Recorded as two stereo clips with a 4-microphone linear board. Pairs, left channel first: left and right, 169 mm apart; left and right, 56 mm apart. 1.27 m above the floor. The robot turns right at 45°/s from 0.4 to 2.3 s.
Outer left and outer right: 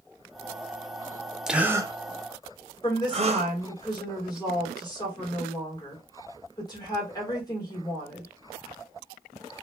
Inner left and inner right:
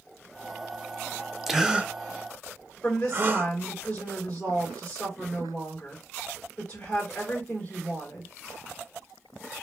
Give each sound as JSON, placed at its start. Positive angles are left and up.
{"t": 1.5, "sound": "a gasp", "side_deg": 0, "distance_m": 0.6}
{"t": 2.8, "sound": "a woman speaking", "side_deg": 25, "distance_m": 3.5}